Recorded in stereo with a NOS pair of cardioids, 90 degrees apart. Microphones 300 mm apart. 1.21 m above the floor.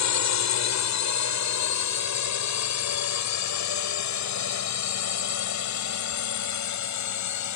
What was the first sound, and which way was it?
A drone, 70° left.